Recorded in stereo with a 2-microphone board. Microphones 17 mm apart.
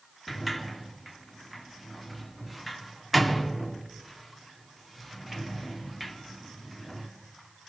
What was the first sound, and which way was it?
A sliding door, 5° right (ahead or behind).